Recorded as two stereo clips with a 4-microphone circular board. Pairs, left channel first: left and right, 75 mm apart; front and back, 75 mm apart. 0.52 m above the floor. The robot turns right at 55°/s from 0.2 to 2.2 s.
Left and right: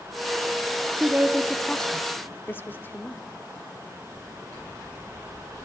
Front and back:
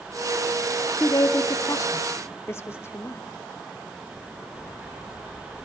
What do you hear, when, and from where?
1.0 s a woman speaking: 25° right, 1.0 m; by 3.2 s 40° left, 1.0 m